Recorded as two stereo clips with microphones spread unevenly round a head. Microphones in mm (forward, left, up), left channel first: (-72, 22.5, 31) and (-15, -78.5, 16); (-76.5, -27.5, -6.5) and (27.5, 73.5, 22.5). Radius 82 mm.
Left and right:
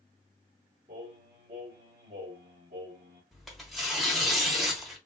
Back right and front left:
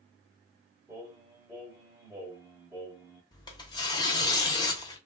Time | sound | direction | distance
0.9 | singing | 25° right | 1.2 m
3.3 | tearing paper | 175° right | 0.8 m